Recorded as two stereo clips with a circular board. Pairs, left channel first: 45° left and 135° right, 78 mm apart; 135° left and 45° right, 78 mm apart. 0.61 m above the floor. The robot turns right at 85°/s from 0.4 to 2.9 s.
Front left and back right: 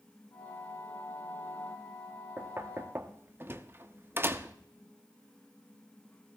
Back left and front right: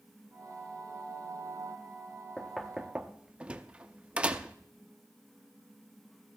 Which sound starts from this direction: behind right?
Knocking, at 2.4 s.